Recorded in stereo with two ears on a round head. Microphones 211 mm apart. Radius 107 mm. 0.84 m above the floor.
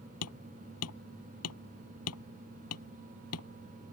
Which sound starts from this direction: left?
Hammering, at 0.2 s.